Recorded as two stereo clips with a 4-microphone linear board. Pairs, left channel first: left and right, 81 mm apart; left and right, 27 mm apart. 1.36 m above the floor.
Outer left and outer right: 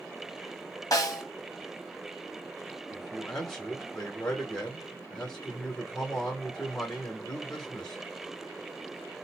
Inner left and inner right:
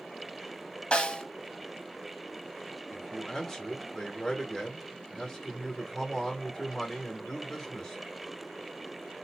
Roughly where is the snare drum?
Left.